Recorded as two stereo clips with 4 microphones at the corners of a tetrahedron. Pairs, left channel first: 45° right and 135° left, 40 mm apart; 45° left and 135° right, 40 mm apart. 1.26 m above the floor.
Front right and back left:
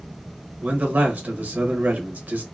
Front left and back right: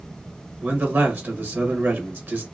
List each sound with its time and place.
0.6 s a man speaking: 175° right, 1.0 m